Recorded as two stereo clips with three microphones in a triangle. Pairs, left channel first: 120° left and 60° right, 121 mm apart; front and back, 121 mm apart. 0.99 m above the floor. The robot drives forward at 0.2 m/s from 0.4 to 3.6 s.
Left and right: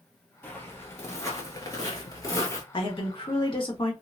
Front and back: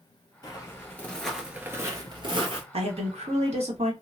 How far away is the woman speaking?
About 1.2 m.